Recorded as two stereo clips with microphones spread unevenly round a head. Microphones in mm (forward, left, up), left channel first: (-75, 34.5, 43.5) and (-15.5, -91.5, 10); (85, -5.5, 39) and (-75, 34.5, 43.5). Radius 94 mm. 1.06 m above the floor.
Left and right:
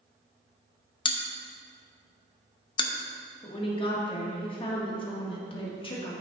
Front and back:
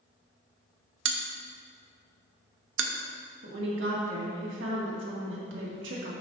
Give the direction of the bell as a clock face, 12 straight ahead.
6 o'clock.